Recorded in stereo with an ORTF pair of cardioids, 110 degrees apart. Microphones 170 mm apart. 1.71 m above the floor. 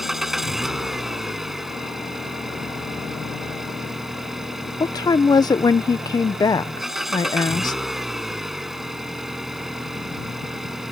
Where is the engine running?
Straight ahead.